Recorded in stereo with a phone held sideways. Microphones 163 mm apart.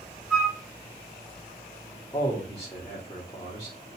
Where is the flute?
5° right (ahead or behind), 1.2 m.